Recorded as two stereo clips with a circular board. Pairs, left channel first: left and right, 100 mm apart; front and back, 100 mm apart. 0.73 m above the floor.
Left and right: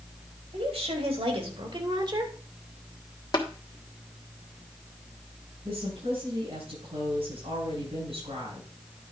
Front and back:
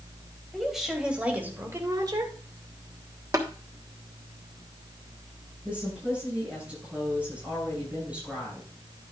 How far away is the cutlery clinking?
I don't hear cutlery clinking.